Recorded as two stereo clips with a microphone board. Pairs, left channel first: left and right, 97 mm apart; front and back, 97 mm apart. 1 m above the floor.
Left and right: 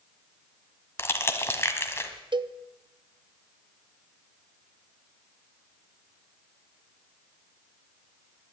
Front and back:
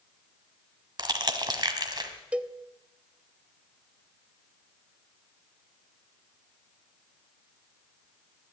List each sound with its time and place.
1.0 s crushing: 150° left, 1.4 m
2.3 s a cowbell: 105° right, 0.5 m